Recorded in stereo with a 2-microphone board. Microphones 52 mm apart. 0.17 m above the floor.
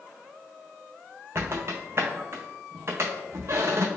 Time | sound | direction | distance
1.4 | a squeak | 45° right (ahead or behind) | 0.7 m